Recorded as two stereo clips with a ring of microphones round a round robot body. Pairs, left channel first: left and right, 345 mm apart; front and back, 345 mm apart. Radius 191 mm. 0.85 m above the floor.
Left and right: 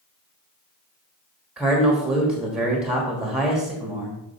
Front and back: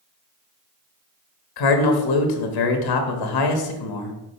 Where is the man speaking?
Straight ahead, 1.3 m.